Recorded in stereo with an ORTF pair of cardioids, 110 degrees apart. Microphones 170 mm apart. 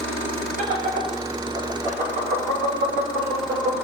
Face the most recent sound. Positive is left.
turn(degrees=-65)